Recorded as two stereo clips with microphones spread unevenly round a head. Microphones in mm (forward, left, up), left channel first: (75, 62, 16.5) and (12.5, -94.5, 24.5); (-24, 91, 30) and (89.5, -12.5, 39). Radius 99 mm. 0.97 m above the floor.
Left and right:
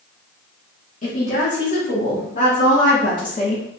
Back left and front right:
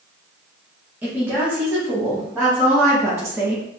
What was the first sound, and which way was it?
A woman speaking, 35° left.